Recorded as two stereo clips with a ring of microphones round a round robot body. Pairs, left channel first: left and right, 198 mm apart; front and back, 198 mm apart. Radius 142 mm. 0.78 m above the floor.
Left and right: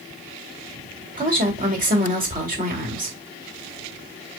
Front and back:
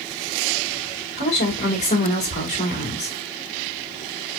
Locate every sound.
1.2 s a woman speaking: 45° right, 2 m